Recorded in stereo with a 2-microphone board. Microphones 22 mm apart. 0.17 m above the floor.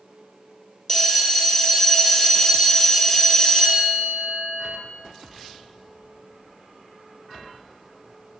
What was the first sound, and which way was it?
A bell, 30° left (ahead or behind).